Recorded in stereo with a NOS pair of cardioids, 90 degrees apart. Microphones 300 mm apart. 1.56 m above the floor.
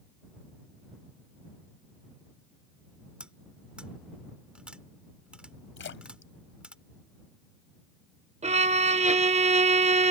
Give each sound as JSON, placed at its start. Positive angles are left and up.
{"t": 3.2, "sound": "cutlery clinking", "azimuth_deg": -5}
{"t": 5.8, "sound": "a splash", "azimuth_deg": 40}
{"t": 8.4, "sound": "a violin", "azimuth_deg": -20}